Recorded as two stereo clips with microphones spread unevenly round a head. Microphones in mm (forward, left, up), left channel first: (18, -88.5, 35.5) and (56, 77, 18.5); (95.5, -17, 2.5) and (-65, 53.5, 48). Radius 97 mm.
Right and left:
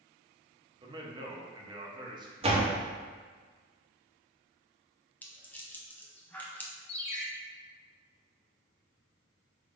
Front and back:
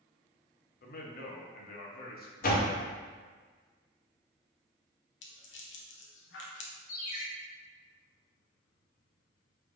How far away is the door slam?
About 0.9 m.